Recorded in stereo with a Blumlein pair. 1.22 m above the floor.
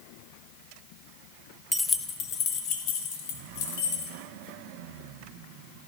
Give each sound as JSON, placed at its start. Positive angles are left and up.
{"t": 1.7, "sound": "keys jangling", "azimuth_deg": 5, "distance_m": 0.8}